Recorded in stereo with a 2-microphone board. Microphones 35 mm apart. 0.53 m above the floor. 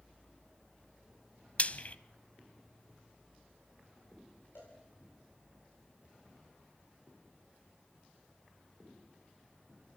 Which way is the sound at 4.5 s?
85° left.